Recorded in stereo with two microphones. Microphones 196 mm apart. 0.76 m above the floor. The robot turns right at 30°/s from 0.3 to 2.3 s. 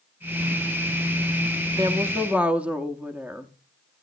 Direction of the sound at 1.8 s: 20° right (ahead or behind).